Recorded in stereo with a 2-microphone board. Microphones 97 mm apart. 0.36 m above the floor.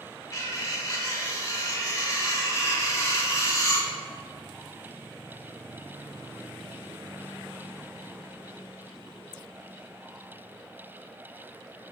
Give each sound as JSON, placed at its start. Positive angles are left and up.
{"t": 0.3, "sound": "cutlery clinking", "side_deg": 30, "distance_m": 0.6}